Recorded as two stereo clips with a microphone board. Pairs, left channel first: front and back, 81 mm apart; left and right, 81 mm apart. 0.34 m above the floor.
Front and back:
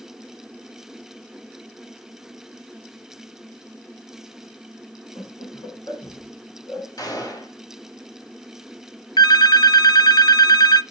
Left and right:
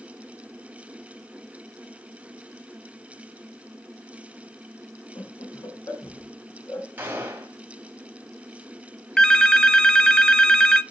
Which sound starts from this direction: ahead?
A phone ringing, at 9.2 s.